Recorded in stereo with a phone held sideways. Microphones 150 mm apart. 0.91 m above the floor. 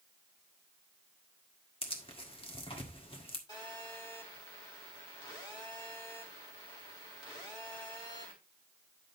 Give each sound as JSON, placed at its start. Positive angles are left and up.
{"t": 1.8, "sound": "tearing paper", "side_deg": 35, "distance_m": 1.7}
{"t": 3.5, "sound": "a phone buzzing", "side_deg": 30, "distance_m": 4.0}